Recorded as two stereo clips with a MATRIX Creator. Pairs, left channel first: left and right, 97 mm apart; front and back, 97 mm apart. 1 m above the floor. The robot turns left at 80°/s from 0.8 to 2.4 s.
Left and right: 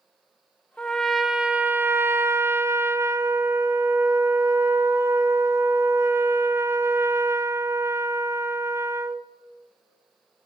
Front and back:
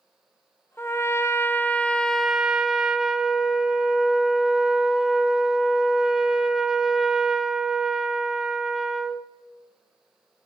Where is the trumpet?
25° left, 0.7 m; by 9.3 s 100° right, 0.7 m.